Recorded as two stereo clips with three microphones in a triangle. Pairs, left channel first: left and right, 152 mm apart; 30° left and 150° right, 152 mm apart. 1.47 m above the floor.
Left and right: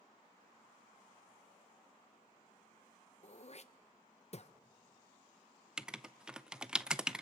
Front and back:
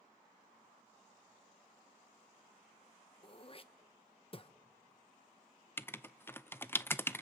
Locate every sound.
3.2 s throat clearing: 70° left, 0.7 m
5.8 s writing: 15° right, 0.5 m